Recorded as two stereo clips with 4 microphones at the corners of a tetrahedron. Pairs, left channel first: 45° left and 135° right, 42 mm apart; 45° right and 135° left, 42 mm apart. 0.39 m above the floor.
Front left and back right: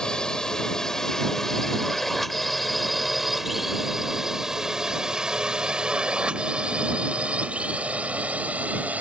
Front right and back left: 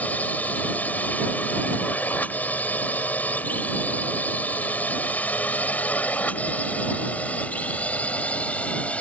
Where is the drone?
20° right; by 9.0 s 95° right.